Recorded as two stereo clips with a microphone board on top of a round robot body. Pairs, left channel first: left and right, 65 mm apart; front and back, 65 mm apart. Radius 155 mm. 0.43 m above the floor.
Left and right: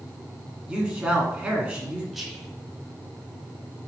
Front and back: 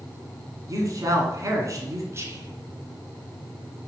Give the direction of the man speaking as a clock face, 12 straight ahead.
5 o'clock.